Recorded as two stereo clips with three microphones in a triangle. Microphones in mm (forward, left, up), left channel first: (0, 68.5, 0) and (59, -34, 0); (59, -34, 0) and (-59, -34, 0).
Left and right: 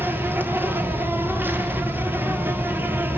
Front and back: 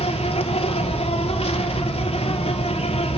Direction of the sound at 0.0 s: 10° left.